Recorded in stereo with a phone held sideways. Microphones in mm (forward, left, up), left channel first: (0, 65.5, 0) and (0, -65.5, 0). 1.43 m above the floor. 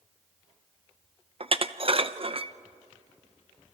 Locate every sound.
1.4 s dishes clattering: 45° right (ahead or behind), 0.7 m